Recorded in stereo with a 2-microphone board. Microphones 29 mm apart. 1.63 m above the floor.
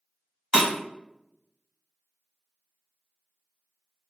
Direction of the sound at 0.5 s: 20° right (ahead or behind).